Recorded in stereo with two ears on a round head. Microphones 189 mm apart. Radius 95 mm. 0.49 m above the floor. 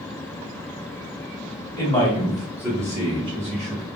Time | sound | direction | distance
1.8 | a man speaking | 15° left (ahead or behind) | 1.2 m